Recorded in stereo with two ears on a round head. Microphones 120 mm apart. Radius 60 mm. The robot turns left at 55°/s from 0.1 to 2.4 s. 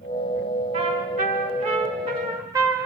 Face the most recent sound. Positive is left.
turn(degrees=-150)